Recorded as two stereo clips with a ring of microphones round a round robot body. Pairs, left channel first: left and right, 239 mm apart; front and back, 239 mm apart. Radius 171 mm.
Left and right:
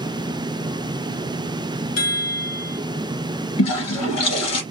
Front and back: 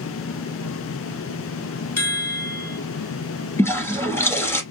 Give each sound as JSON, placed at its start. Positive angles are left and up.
{"t": 2.0, "sound": "a chime", "azimuth_deg": 80, "distance_m": 3.5}
{"t": 3.6, "sound": "a toilet flushing", "azimuth_deg": 80, "distance_m": 2.5}